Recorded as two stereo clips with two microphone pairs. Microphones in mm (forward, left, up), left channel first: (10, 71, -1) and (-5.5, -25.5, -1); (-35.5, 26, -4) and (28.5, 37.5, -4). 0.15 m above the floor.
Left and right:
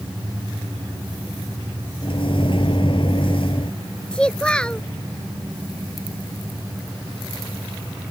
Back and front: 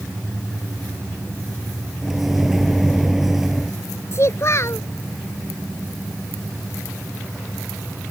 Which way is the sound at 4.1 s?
160° left.